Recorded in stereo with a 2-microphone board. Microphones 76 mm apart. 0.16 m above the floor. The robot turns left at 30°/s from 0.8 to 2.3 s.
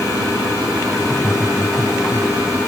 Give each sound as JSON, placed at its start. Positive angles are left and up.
{"t": 1.0, "sound": "laughter", "azimuth_deg": -15, "distance_m": 2.5}